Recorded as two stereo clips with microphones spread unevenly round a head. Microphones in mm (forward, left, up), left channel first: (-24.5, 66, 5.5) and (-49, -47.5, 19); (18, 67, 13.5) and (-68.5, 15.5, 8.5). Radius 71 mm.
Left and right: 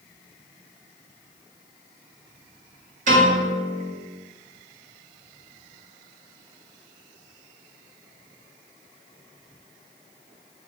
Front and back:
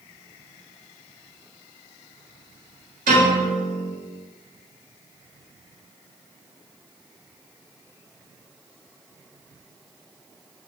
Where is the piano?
115° right, 1.3 m.